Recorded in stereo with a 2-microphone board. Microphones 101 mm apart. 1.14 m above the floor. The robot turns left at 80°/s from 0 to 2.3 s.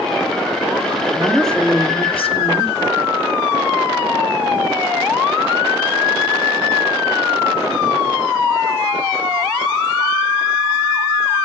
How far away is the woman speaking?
About 2.5 m.